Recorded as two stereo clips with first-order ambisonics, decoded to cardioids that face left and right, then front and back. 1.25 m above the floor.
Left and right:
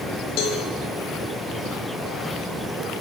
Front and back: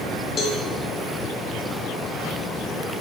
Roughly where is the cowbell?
Ahead left.